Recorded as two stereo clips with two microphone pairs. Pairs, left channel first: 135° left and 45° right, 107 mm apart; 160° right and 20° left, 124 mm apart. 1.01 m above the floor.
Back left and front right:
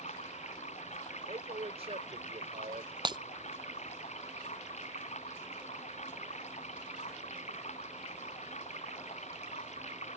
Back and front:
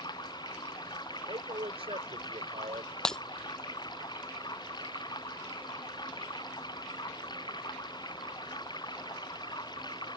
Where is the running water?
145° left.